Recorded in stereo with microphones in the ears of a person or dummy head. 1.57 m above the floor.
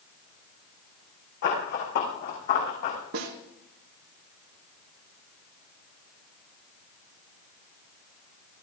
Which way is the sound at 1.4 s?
60° left (ahead or behind).